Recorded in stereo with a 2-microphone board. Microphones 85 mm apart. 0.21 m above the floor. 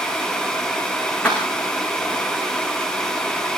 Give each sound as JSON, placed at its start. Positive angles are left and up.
{"t": 1.2, "sound": "keys jangling", "side_deg": 15, "distance_m": 9.5}